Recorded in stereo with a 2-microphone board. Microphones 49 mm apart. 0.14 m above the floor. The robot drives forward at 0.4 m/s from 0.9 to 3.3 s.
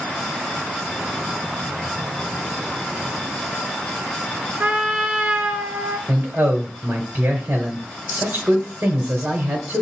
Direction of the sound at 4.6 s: 25° right (ahead or behind).